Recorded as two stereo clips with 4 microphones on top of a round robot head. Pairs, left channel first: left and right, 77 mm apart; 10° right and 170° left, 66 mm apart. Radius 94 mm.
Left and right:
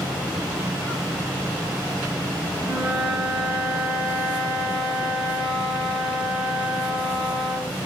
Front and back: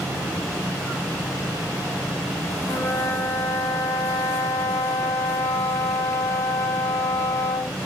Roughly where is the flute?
Ahead.